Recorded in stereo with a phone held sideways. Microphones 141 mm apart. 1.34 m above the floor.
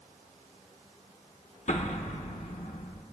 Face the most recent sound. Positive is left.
turn(degrees=55)  # may be behind; listen again after turning